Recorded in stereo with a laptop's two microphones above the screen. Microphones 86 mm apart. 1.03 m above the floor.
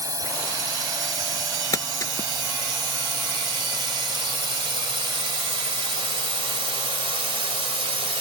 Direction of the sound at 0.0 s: 40° right (ahead or behind).